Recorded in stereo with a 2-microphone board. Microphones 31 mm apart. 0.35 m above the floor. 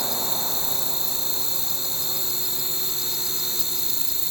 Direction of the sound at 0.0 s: 10° right (ahead or behind).